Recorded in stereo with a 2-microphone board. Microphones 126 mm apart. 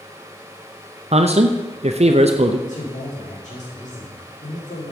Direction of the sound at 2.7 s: 80° left.